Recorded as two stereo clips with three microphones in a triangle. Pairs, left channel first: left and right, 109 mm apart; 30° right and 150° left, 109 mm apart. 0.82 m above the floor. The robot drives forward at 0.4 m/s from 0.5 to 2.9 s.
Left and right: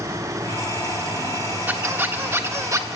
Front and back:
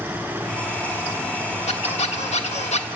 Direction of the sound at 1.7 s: 15° right.